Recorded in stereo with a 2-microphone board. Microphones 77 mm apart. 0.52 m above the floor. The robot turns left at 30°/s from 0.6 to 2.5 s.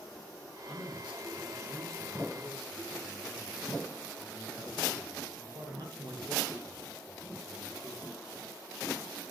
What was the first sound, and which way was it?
A man speaking, 5° right.